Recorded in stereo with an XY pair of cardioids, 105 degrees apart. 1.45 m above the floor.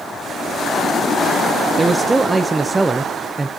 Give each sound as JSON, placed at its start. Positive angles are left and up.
{"t": 1.8, "sound": "a man speaking", "azimuth_deg": -20, "distance_m": 0.6}